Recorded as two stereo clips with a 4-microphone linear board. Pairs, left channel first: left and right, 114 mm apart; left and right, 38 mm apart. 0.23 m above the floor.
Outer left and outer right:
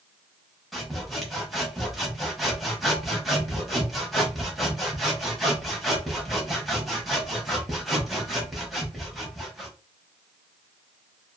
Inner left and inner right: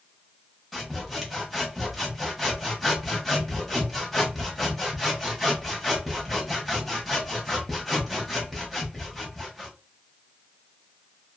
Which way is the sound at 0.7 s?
Centre (ahead or behind).